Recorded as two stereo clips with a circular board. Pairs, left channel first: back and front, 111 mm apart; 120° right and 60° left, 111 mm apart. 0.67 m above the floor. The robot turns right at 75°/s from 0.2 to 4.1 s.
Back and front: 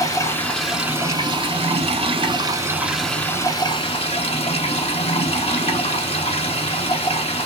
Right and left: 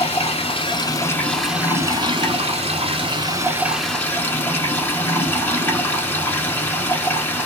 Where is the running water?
125° right, 1.0 m; by 7.5 s 170° left, 1.0 m.